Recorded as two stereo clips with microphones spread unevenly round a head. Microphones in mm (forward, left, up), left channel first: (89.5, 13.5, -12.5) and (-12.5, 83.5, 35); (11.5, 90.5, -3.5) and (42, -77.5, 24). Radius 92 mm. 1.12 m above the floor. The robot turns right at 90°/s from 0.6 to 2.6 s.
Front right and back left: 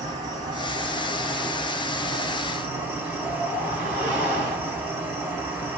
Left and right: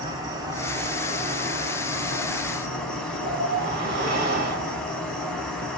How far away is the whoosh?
About 1.5 m.